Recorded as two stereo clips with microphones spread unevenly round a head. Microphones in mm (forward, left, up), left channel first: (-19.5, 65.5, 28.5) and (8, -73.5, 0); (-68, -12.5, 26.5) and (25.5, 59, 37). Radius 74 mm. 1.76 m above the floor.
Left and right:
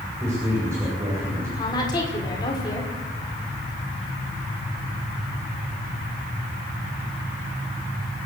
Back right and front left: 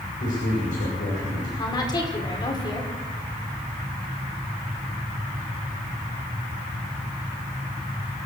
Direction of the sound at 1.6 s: 160° left.